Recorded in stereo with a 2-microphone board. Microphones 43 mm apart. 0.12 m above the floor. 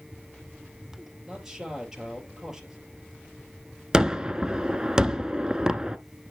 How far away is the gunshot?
About 0.7 m.